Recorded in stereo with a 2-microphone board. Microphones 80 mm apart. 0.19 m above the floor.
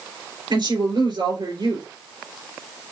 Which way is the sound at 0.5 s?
70° right (ahead or behind).